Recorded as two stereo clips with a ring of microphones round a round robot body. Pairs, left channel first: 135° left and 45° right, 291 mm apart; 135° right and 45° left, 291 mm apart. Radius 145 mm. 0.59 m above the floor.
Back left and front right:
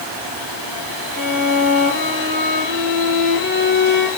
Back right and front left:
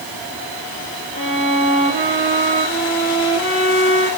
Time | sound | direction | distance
1.1 | a violin | 110° right | 8.5 m